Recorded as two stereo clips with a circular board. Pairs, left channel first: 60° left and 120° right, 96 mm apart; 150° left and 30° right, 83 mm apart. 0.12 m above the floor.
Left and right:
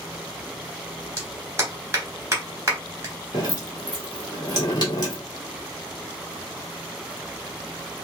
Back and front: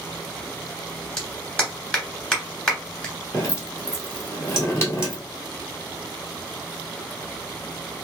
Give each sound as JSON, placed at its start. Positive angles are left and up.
{"t": 1.2, "sound": "a clap", "azimuth_deg": -135, "distance_m": 1.4}
{"t": 3.3, "sound": "dripping", "azimuth_deg": 95, "distance_m": 1.4}